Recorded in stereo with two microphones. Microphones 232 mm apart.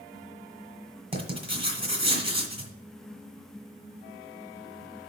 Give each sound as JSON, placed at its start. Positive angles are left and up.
{"t": 1.1, "sound": "writing", "side_deg": -25, "distance_m": 1.7}